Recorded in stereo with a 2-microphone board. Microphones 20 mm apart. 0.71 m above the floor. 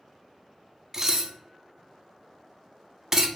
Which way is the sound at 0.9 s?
20° right (ahead or behind).